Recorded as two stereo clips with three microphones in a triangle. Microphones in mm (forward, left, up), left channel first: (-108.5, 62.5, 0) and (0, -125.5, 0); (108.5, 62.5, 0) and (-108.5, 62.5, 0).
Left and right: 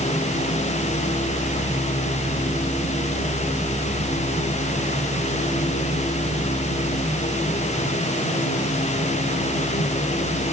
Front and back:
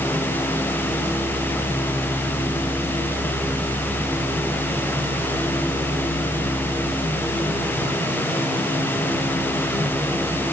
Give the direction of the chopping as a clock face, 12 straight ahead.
I don't hear chopping.